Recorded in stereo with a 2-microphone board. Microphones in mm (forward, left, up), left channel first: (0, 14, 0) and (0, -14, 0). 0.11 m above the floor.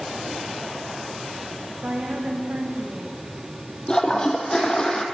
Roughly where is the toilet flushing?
Left.